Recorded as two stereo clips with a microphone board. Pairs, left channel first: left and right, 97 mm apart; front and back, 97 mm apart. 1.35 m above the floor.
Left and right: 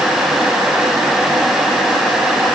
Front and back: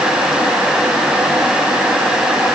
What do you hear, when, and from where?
Only background noise.